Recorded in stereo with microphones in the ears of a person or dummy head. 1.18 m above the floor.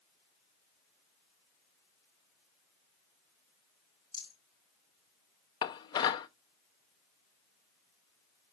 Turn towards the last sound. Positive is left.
turn(degrees=30)  # may be behind; listen again after turning